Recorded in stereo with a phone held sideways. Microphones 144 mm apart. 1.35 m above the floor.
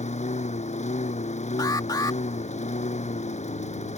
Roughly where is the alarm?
Left.